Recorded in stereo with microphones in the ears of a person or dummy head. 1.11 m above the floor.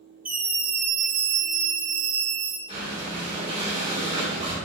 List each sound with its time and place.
0.2 s a scream: 10° right (ahead or behind), 0.9 m; by 2.6 s 70° right (ahead or behind), 1.3 m
2.7 s breathing: 40° right (ahead or behind), 1.9 m